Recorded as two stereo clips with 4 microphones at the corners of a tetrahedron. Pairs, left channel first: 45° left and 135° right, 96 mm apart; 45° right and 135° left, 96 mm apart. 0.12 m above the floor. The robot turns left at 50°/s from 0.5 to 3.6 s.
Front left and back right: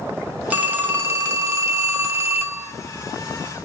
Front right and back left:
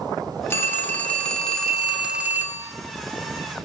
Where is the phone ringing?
75° right, 0.7 m; by 2.7 s 175° left, 0.7 m.